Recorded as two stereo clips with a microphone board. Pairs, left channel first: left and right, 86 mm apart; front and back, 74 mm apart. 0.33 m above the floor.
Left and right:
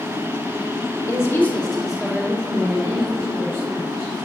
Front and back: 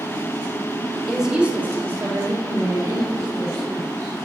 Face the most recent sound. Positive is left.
turn(degrees=-140)